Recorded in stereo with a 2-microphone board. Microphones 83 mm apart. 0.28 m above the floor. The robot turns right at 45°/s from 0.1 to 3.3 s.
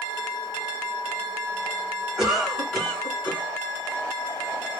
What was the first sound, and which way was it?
A cough, 15° right.